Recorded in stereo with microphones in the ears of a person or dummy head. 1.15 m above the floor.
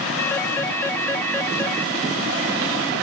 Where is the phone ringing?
10° left (ahead or behind).